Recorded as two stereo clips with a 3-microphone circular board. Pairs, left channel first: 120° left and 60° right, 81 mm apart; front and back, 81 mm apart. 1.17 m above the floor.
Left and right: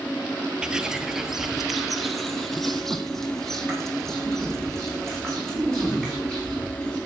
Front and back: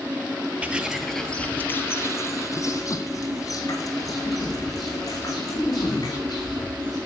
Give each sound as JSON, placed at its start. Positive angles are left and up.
{"t": 0.6, "sound": "footsteps", "azimuth_deg": -125, "distance_m": 1.3}